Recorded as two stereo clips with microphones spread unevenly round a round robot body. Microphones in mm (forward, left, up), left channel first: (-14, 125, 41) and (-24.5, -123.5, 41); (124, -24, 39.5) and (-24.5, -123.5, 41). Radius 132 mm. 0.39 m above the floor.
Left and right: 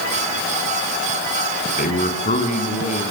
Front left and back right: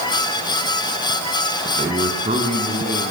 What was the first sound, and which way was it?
A man speaking, 145° left.